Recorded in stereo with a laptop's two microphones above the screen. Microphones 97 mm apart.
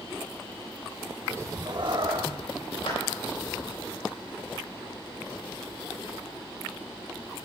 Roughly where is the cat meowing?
Right.